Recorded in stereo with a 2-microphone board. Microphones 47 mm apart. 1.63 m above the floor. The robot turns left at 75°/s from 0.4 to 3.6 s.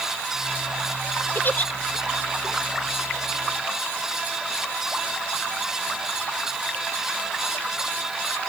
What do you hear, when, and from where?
1.4 s a giggle: 50° left (ahead or behind); by 1.7 s 30° left (ahead or behind)